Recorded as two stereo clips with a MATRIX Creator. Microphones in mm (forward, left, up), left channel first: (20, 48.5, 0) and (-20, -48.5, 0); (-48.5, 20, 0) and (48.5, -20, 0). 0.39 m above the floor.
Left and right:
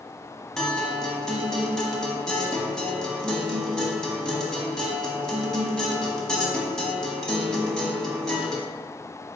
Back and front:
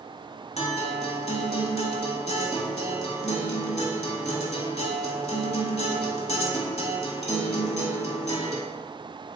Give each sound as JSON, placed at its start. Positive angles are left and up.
{"t": 0.6, "sound": "a guitar", "azimuth_deg": 150, "distance_m": 0.8}